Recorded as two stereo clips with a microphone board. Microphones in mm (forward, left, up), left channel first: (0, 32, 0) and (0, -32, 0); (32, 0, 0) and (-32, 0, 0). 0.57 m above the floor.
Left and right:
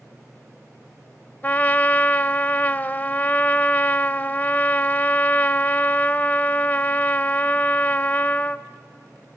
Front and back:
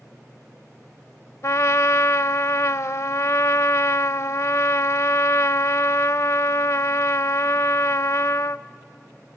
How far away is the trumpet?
About 0.5 m.